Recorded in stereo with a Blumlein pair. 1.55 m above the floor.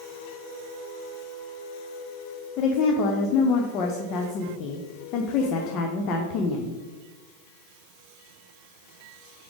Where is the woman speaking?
35° left, 0.8 m.